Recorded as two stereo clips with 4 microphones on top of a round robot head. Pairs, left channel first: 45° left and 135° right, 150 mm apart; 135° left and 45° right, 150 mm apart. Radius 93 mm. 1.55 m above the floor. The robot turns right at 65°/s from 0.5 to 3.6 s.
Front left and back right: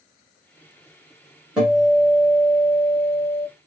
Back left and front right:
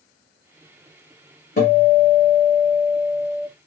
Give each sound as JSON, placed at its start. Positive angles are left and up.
{"t": 1.6, "sound": "a guitar", "azimuth_deg": 140, "distance_m": 1.6}